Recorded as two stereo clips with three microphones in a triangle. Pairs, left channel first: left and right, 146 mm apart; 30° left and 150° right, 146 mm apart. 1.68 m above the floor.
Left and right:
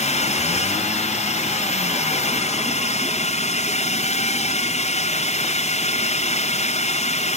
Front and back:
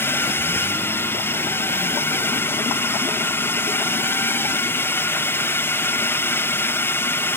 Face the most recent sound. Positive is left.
turn(degrees=100)